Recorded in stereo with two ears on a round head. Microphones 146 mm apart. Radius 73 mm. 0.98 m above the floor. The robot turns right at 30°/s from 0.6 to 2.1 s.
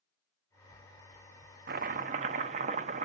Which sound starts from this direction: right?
Chopping, at 1.7 s.